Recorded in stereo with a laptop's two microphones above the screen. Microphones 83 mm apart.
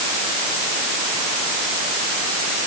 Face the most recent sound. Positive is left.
No sound to turn to.